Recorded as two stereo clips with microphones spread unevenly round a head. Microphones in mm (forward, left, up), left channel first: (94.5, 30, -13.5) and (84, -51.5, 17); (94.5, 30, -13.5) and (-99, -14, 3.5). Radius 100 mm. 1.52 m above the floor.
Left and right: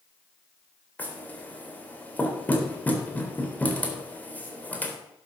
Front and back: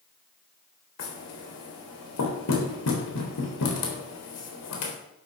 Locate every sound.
1.0 s knocking: 5° left, 4 m